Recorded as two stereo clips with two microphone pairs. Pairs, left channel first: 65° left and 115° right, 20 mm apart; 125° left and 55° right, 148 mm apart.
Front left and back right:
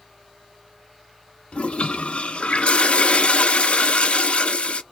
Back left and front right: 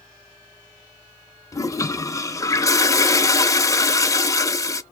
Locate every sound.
1.5 s a toilet flushing: 55° left, 0.5 m